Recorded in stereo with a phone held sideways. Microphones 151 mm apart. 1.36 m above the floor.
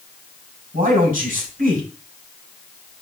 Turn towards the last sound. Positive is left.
turn(degrees=-75)  # may be behind; listen again after turning